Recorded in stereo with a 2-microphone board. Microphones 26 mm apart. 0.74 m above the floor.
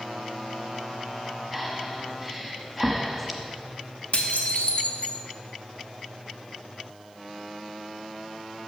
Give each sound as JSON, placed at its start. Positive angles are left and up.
{"t": 1.5, "sound": "breathing", "side_deg": -5, "distance_m": 0.9}
{"t": 4.1, "sound": "dishes clattering", "side_deg": 65, "distance_m": 0.8}